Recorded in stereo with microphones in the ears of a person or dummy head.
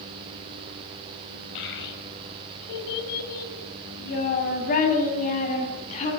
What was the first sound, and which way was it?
A child speaking, 65° left (ahead or behind).